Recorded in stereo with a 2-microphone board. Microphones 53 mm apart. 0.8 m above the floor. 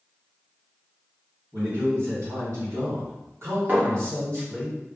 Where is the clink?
35° right (ahead or behind), 0.8 m.